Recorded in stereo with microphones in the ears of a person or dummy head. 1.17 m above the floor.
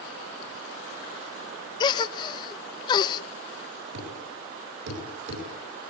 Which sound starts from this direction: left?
A gasp, at 1.8 s.